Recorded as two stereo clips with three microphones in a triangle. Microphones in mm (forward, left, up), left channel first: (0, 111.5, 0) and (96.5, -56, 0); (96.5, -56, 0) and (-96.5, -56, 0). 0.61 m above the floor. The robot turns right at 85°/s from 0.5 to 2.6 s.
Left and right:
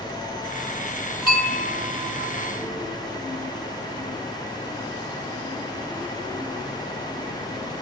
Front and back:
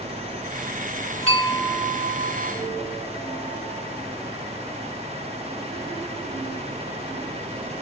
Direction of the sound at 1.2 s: 50° left.